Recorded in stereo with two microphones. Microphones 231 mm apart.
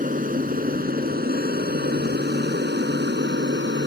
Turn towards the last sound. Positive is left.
turn(degrees=-50)  # may be behind; listen again after turning